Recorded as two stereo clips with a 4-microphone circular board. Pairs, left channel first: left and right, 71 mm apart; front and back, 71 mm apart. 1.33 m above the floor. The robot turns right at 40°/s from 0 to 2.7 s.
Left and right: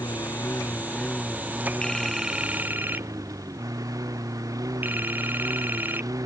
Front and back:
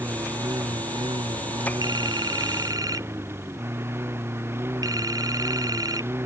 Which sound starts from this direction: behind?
A phone ringing, at 1.8 s.